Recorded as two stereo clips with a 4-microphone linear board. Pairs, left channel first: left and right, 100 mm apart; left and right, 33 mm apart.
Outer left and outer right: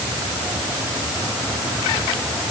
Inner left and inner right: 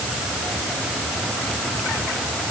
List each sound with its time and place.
Only background noise.